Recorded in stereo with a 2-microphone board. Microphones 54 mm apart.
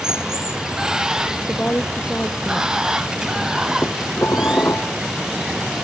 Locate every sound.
0.0 s running water: 10° right (ahead or behind)
1.5 s a woman speaking: 35° left (ahead or behind)
3.8 s dishes clattering: 50° left (ahead or behind)